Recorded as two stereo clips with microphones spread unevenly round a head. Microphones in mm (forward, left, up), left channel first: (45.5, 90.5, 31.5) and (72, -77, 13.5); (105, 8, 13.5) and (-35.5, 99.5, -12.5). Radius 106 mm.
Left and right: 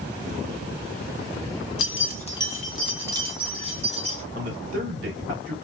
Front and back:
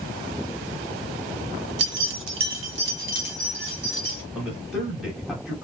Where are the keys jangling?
125° left, 0.6 m; by 4.2 s 140° right, 1.6 m.